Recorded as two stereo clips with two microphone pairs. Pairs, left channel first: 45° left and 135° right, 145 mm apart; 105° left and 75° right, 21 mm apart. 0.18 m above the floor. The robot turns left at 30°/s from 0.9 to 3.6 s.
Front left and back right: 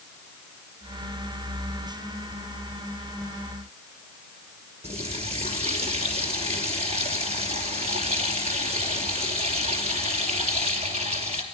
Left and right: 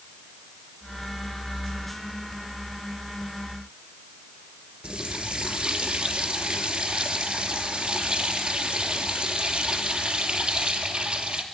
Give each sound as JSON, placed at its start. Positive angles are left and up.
{"t": 4.8, "sound": "a running tap", "azimuth_deg": -95, "distance_m": 2.5}